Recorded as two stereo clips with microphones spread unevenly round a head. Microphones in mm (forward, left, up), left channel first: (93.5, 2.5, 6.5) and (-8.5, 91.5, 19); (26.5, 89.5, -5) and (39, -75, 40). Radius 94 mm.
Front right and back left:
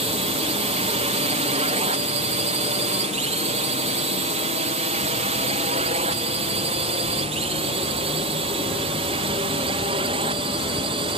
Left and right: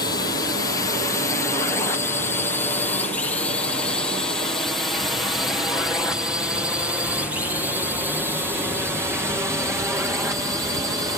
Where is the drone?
130° left; by 11.2 s 165° right.